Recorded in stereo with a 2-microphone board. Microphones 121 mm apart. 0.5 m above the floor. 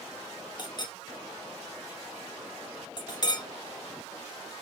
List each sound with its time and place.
0.6 s a clink: 35° left (ahead or behind), 0.5 m